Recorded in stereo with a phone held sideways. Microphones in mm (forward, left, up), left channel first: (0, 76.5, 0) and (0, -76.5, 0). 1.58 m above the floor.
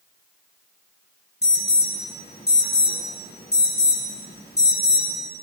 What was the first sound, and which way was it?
An alarm, 85° left.